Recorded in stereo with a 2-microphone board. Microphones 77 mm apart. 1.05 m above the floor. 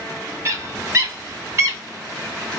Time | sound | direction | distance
0.5 | a bird | 35° right (ahead or behind) | 1.4 m